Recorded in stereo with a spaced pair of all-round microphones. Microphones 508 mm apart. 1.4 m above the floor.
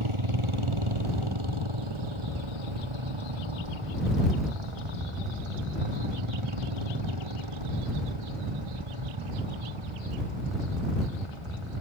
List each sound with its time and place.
0.0 s a motorcycle: 85° right